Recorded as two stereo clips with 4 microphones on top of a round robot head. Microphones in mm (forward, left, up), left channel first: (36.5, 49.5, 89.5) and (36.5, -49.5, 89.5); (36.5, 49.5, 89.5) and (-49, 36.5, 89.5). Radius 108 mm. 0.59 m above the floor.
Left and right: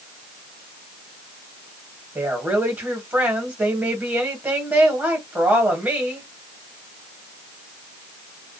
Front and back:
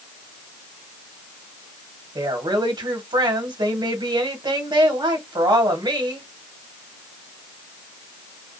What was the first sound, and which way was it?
A woman speaking, 160° right.